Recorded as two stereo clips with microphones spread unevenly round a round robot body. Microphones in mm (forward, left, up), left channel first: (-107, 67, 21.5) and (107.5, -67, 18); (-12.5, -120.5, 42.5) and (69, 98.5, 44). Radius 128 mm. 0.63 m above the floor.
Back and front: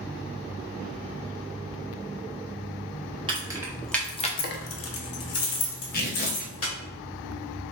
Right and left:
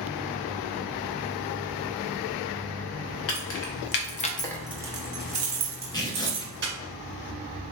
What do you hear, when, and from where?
3.3 s keys jangling: 100° right, 1.1 m; by 6.7 s 115° left, 2 m
5.9 s tearing paper: 175° right, 0.8 m